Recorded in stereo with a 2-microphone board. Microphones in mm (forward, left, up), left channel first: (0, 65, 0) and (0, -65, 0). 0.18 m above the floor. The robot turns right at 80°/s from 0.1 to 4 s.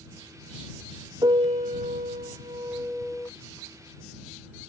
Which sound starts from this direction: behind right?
A piano, at 1.2 s.